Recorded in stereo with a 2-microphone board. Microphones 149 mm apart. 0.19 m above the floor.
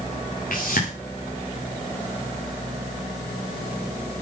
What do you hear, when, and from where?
0.5 s a whoosh: 70° left (ahead or behind), 7 m